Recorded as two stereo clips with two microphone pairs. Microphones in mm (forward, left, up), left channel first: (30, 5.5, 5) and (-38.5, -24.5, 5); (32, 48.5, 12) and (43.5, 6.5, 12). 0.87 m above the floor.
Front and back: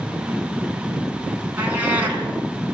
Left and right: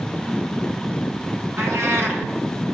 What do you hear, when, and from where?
1.6 s a cat meowing: 90° right, 4.5 m